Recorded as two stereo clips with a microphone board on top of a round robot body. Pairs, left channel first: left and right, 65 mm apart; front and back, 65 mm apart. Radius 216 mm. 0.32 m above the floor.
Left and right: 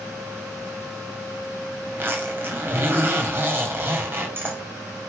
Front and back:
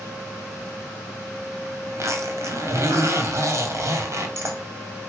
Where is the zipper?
145° right, 2.5 m.